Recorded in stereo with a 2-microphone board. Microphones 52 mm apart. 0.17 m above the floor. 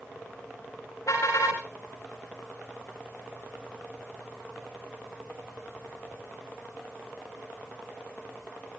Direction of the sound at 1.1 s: 85° left.